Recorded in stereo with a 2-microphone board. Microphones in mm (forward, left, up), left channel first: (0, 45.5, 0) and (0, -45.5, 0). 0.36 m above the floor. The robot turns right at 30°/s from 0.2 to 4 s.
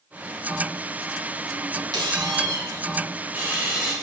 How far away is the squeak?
About 1.0 m.